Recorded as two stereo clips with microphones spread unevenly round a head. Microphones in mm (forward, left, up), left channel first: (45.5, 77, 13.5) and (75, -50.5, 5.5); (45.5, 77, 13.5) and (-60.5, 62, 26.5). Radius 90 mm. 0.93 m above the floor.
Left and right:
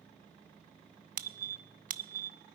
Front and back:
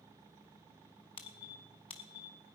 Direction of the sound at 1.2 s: 55° right.